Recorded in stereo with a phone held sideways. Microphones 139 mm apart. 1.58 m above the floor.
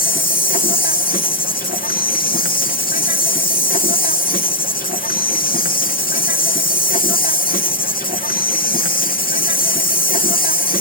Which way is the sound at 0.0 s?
75° left (ahead or behind).